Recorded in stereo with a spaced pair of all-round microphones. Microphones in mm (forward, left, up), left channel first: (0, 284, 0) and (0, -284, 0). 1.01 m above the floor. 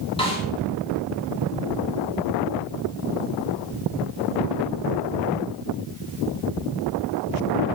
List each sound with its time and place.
0.2 s a snare drum: 10° left (ahead or behind), 3.5 m